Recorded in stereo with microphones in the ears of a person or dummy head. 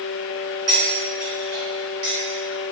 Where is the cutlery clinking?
55° right (ahead or behind), 1.9 m.